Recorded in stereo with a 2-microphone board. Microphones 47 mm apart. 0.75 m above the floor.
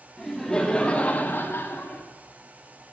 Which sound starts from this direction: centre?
Laughter, at 0.2 s.